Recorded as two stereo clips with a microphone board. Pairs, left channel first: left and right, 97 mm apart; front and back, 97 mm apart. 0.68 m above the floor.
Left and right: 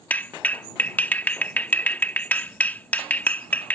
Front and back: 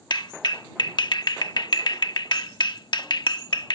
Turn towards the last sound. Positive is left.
turn(degrees=20)